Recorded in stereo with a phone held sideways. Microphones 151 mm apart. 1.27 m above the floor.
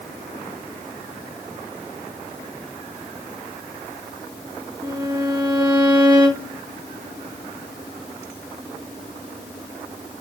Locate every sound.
4.8 s a violin: 25° right (ahead or behind), 2 m